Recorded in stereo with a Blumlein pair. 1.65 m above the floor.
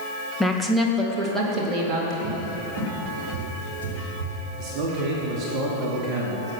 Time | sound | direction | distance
0.4 | a woman speaking | 5° left | 1.8 m
2.2 | a cupboard door | 55° right | 2.5 m
4.6 | a man speaking | 35° right | 2.5 m